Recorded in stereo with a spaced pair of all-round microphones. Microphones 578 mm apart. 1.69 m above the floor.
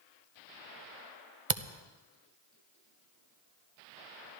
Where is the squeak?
I don't hear a squeak.